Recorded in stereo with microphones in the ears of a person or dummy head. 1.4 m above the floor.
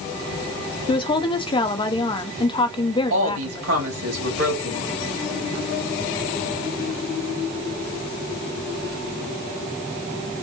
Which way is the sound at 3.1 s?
85° right.